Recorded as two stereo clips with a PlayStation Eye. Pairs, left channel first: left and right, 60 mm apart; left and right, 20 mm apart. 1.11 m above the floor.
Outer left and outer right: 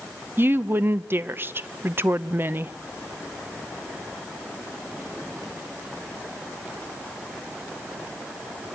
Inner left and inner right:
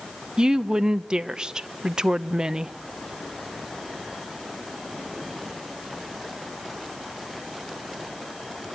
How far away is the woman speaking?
About 0.7 m.